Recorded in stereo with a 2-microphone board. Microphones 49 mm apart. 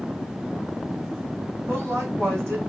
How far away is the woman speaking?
About 3.5 m.